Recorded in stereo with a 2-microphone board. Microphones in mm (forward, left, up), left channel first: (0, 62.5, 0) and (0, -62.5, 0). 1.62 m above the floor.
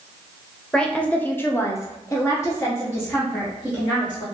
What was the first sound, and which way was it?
A woman speaking, 5° left (ahead or behind).